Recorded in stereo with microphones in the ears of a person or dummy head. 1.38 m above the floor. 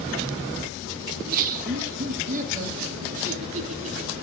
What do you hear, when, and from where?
1.1 s laughter: 45° right (ahead or behind), 1.1 m; by 4.2 s 40° right (ahead or behind), 3.5 m